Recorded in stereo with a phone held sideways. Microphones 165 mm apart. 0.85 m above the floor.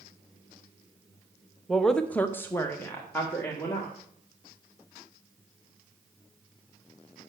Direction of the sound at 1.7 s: Centre (ahead or behind).